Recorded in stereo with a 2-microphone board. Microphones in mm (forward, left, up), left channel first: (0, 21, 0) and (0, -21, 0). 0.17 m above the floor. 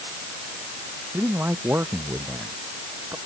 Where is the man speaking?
85° right.